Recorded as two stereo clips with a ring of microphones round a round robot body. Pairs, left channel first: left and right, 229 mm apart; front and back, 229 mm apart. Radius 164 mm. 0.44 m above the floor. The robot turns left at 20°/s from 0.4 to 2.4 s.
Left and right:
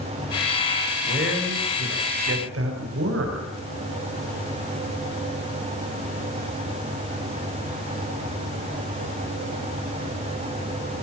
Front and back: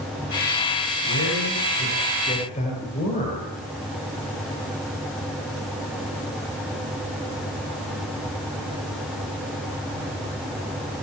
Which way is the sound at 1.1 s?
45° right.